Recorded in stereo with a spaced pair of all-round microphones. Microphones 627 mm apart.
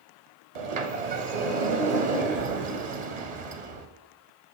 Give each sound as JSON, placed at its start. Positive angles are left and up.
{"t": 0.6, "sound": "a sliding door", "side_deg": -65, "distance_m": 0.8}